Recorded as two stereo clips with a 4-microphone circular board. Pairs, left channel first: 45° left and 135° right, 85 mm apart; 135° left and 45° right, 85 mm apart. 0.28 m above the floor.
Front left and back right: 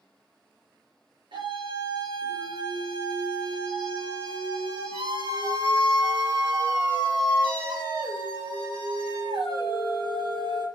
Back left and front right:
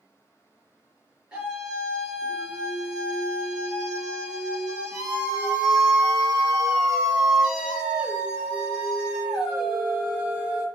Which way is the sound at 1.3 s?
125° right.